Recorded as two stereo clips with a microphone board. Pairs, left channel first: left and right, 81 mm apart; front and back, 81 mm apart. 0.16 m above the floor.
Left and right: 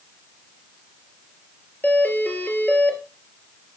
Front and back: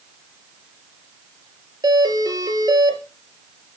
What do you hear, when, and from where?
1.8 s a doorbell: 155° left, 3.5 m